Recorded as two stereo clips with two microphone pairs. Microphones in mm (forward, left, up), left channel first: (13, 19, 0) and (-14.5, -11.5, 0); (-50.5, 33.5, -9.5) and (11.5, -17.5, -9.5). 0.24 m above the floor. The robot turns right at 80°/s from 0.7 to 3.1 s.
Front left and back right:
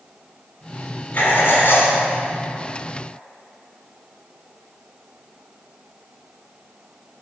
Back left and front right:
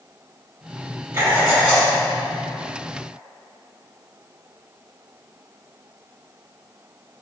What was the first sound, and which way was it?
Writing, 15° left.